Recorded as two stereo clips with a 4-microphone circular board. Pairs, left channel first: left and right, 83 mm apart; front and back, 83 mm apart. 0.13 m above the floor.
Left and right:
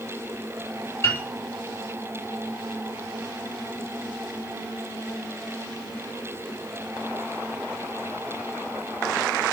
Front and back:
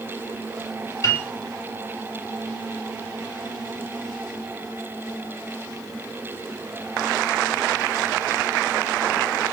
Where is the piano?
40° left, 1.7 m.